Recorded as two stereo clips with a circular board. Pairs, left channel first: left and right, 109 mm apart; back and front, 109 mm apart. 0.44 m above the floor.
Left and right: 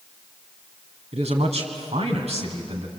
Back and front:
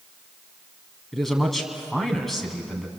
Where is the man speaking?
90° right, 3.5 m.